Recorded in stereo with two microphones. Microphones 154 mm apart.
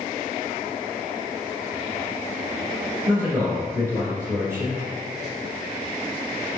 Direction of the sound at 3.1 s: 20° right (ahead or behind).